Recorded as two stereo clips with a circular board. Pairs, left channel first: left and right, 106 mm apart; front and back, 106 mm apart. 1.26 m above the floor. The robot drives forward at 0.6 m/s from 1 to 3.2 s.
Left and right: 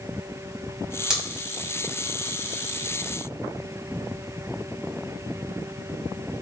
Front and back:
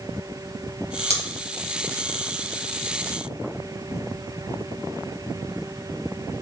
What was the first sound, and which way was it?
Scissors, 10° right.